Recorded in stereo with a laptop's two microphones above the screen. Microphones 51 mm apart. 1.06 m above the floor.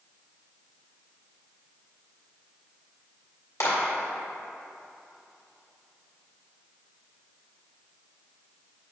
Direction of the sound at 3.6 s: 80° left.